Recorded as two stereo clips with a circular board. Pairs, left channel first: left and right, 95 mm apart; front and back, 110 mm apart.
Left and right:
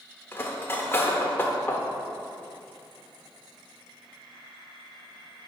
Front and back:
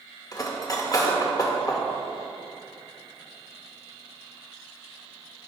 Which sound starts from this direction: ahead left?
Cutlery clinking, at 0.3 s.